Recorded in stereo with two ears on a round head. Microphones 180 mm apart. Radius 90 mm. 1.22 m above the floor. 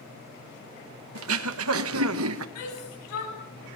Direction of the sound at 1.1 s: 80° right.